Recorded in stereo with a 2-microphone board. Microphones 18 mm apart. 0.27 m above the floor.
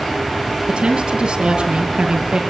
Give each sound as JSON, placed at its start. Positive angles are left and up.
{"t": 0.7, "sound": "a woman speaking", "side_deg": -50, "distance_m": 6.0}